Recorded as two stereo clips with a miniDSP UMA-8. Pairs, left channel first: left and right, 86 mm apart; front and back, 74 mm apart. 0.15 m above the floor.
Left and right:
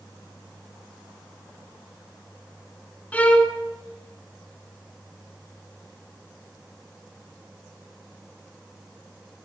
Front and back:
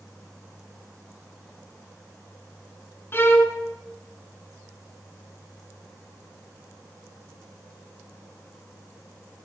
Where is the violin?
30° left, 1.7 m.